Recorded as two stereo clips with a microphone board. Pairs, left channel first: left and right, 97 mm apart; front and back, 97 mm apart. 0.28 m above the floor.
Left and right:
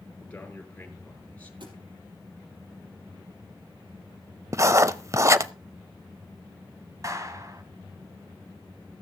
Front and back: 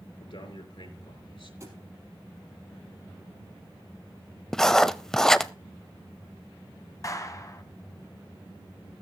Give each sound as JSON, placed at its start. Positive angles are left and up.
{"t": 0.2, "sound": "a man speaking", "azimuth_deg": 20, "distance_m": 4.5}
{"t": 1.6, "sound": "a thud", "azimuth_deg": -120, "distance_m": 4.5}
{"t": 4.5, "sound": "writing", "azimuth_deg": -80, "distance_m": 0.6}
{"t": 7.0, "sound": "a clap", "azimuth_deg": -45, "distance_m": 1.7}